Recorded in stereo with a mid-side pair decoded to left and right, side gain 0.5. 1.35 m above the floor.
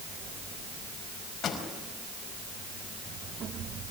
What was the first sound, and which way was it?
A pop, 50° left.